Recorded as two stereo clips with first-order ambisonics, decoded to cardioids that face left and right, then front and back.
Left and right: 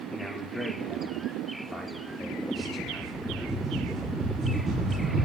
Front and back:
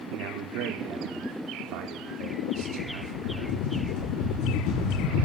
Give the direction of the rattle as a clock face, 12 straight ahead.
1 o'clock.